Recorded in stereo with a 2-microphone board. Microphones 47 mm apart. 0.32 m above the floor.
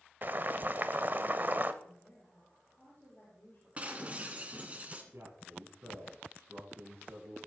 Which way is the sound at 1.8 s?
35° left (ahead or behind).